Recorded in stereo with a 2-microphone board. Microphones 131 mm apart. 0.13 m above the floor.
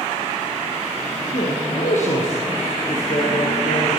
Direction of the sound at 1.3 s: 70° left (ahead or behind).